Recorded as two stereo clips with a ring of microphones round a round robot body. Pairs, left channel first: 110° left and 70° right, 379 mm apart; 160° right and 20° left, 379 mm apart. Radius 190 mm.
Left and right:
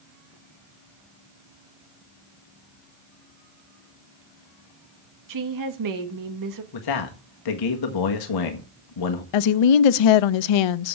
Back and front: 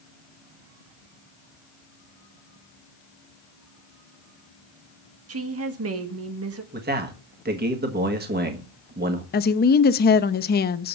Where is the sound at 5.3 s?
30° right, 1.6 m.